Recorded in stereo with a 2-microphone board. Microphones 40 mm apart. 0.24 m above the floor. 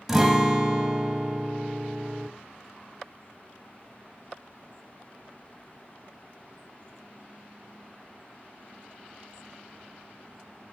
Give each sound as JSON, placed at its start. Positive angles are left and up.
{"t": 0.1, "sound": "a guitar", "side_deg": -10, "distance_m": 0.9}